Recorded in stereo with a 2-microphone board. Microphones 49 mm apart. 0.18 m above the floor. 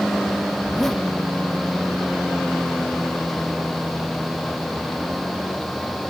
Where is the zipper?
10° left (ahead or behind).